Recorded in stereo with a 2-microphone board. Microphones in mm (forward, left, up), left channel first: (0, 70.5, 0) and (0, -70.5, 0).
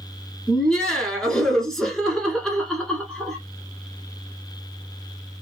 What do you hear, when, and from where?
0.5 s laughter: 5° left (ahead or behind), 1.1 m